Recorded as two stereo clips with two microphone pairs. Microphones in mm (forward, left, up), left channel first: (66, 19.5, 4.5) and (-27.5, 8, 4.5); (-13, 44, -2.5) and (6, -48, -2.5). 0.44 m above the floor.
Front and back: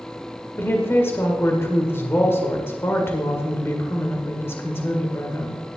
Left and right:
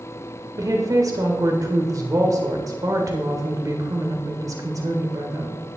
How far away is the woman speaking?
About 1.7 m.